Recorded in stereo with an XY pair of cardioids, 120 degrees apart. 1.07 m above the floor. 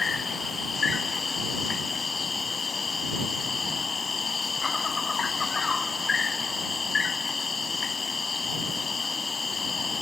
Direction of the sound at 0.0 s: 30° left.